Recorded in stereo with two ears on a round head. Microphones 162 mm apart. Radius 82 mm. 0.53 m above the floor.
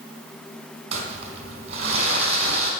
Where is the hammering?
No hammering in this recording.